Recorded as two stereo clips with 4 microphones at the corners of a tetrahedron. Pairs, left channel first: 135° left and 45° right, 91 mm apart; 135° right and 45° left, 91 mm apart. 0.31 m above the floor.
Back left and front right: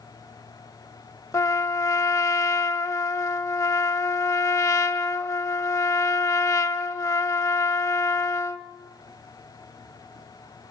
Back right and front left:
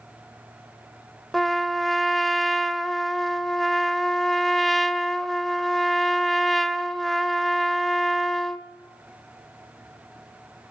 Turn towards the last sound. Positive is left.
turn(degrees=135)